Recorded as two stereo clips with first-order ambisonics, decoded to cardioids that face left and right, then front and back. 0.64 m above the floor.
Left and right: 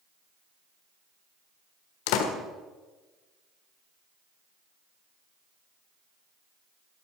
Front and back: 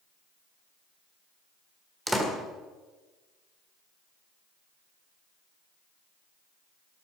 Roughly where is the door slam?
Left.